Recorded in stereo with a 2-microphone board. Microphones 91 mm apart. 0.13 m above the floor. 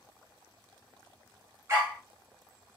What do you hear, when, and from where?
1.7 s a dog barking: 30° right (ahead or behind), 1.0 m